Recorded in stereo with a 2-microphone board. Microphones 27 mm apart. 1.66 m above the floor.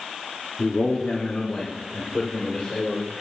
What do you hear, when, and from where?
0.6 s a man speaking: 60° left (ahead or behind), 0.9 m; by 3.1 s 35° left (ahead or behind), 2 m